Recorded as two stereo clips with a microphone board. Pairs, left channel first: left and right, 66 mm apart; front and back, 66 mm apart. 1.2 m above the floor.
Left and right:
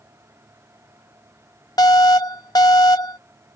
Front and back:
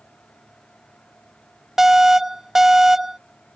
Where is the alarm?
95° left.